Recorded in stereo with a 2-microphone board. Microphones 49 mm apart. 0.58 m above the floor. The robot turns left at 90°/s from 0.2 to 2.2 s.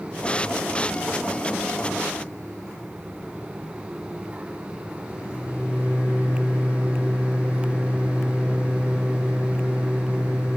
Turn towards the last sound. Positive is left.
turn(degrees=70)  # may be behind; listen again after turning